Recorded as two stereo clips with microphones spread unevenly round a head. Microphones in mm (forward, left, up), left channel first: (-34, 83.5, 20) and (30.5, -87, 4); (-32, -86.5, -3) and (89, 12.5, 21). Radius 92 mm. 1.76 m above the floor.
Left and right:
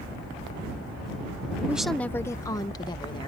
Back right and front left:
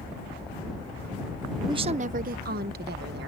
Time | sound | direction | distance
1.7 | a woman speaking | 10° left | ?